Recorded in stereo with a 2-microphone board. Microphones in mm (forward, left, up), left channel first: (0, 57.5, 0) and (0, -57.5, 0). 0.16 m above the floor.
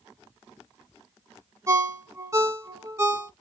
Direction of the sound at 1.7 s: 25° right (ahead or behind).